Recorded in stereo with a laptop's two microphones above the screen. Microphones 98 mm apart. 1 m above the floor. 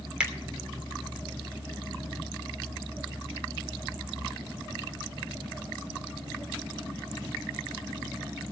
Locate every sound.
0.2 s a finger snap: 10° right (ahead or behind), 2.5 m